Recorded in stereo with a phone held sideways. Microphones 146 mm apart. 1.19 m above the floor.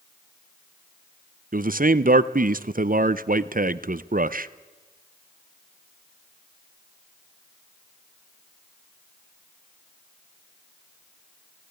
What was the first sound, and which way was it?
A man speaking, 65° right (ahead or behind).